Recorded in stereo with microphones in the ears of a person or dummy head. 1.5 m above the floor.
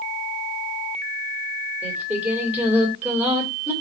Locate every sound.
1.8 s singing: 10° right (ahead or behind), 2.5 m